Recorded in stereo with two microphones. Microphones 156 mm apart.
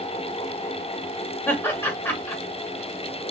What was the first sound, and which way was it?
Laughter, 15° left (ahead or behind).